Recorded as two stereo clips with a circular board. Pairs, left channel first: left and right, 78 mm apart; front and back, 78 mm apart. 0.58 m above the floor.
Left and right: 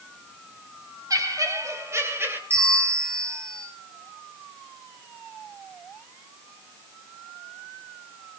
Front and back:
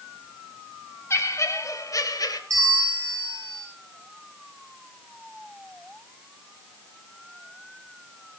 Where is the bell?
145° right, 4 m.